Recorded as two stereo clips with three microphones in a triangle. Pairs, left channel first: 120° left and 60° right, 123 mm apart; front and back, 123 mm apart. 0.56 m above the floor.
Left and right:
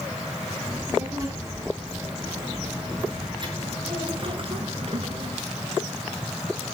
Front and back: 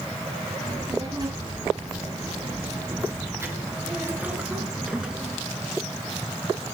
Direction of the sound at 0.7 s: 125° right.